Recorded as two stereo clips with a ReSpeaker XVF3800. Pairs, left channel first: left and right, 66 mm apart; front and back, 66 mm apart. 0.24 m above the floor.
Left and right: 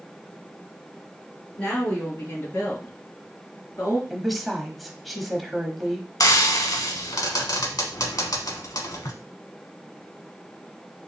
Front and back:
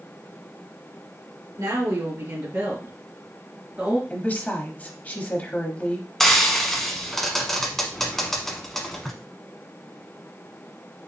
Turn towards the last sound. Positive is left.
turn(degrees=85)